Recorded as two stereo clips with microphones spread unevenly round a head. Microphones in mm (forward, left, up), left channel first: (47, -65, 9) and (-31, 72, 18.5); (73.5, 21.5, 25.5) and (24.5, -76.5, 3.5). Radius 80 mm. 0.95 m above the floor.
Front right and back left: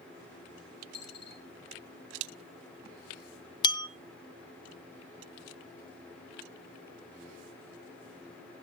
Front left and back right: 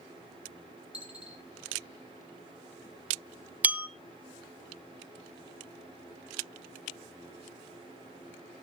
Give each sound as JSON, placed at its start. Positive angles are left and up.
{"t": 0.9, "sound": "a dropped coin", "azimuth_deg": -35, "distance_m": 4.5}
{"t": 3.6, "sound": "a bell", "azimuth_deg": -35, "distance_m": 0.6}